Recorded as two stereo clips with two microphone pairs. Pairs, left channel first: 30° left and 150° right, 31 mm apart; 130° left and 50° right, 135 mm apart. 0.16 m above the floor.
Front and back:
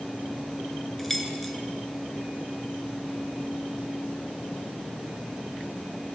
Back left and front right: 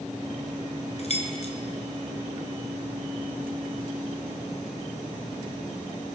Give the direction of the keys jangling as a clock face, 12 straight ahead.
8 o'clock.